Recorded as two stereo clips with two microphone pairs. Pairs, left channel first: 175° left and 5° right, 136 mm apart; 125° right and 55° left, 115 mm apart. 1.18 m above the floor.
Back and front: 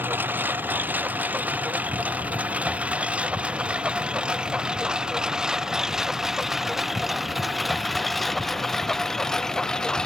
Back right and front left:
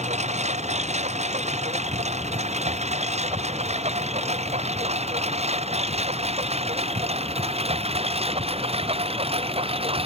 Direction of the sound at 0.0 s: 70° left.